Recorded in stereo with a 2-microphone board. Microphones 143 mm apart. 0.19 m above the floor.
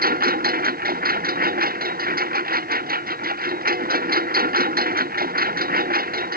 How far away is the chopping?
No chopping in this recording.